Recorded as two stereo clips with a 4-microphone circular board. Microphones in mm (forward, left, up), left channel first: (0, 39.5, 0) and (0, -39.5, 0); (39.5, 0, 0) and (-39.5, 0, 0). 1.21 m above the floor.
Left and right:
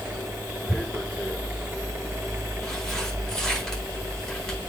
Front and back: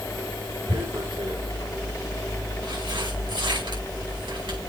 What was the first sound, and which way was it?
Tearing paper, 175° left.